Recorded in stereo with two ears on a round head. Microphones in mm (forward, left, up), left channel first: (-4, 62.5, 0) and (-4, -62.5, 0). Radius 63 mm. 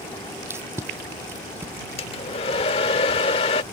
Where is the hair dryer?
45° left (ahead or behind).